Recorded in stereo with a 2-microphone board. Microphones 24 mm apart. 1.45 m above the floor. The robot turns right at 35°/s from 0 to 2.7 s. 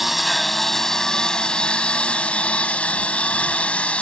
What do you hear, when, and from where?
0.0 s a lawn mower: 5° right; by 4.0 s 90° left